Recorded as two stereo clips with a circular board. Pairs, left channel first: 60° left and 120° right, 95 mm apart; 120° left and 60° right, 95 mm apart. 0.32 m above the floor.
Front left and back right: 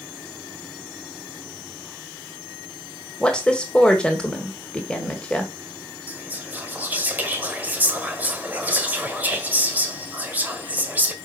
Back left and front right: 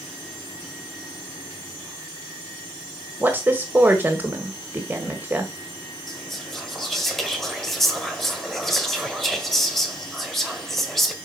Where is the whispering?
160° right, 1.6 m.